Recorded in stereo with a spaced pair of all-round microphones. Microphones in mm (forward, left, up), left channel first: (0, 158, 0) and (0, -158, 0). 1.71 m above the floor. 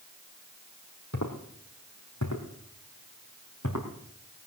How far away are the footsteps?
About 3 m.